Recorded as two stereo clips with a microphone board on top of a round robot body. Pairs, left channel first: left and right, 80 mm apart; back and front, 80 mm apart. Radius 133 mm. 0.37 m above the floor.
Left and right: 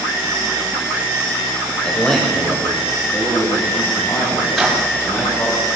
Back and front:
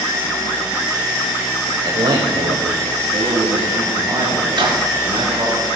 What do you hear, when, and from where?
1.8 s a man speaking: 10° left, 1.7 m; by 5.5 s 40° left, 4 m
4.5 s a microwave: straight ahead, 4.5 m